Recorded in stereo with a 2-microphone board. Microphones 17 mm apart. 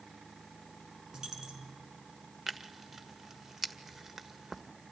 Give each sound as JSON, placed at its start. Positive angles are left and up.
{"t": 1.1, "sound": "a dropped coin", "side_deg": -35, "distance_m": 4.0}
{"t": 2.5, "sound": "tearing paper", "side_deg": -20, "distance_m": 1.5}